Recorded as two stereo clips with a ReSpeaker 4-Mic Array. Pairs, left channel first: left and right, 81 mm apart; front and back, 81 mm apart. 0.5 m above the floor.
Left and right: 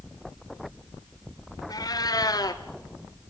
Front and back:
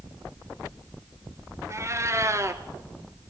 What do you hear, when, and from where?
1.7 s a cat meowing: 125° left, 1.5 m